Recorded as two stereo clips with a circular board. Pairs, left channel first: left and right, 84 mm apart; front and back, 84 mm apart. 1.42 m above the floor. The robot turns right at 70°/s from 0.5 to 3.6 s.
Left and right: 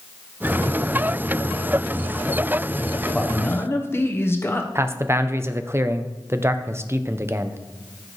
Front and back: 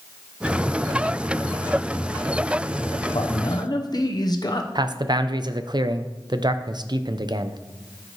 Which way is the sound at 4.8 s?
150° right.